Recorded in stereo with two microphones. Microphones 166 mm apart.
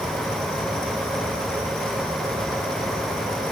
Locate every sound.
Only background noise.